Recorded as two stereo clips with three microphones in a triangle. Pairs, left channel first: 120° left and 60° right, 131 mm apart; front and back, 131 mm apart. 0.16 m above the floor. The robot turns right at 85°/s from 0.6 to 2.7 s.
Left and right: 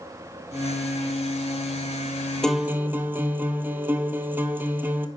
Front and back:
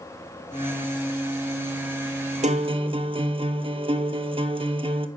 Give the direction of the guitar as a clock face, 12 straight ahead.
5 o'clock.